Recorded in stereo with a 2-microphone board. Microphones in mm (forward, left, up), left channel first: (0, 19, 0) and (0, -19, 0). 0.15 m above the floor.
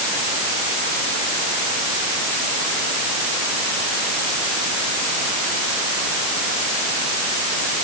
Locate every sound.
Only background noise.